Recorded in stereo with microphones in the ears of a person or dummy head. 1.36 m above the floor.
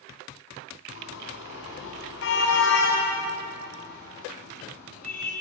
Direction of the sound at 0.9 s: 80° left.